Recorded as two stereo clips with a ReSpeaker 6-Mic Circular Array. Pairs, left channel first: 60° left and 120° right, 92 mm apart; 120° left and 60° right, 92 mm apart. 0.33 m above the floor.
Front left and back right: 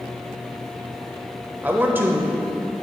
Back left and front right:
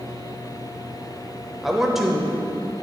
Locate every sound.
1.6 s a man speaking: 140° right, 0.9 m